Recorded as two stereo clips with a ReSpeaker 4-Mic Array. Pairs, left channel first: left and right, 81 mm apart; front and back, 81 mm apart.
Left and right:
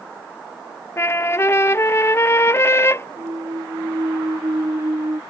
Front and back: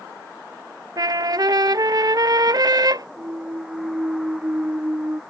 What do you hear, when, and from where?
1.0 s a trumpet: 145° left
3.2 s a clunk: 125° right